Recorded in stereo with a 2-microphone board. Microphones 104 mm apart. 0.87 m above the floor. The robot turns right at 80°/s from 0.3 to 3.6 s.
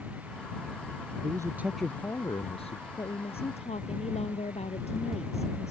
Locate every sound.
1.2 s a man speaking: 45° right; by 2.9 s 85° left
3.0 s a woman speaking: 35° left; by 5.7 s 85° left